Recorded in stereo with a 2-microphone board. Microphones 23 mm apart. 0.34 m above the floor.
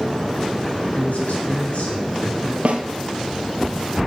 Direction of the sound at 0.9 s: 70° left (ahead or behind).